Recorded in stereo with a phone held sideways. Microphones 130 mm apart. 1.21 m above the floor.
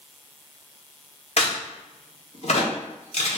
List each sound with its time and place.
1.4 s a crack: 55° left (ahead or behind), 0.8 m